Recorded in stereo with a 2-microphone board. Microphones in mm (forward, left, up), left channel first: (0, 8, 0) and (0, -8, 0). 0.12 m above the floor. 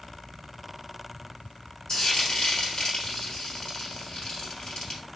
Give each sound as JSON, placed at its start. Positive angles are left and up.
{"t": 1.9, "sound": "frying", "side_deg": 55, "distance_m": 2.0}